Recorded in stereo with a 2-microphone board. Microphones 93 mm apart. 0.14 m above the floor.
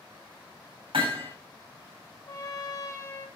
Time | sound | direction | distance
0.9 | hammering | 75° right (ahead or behind) | 8 m
2.3 | a trumpet | 35° left (ahead or behind) | 2.5 m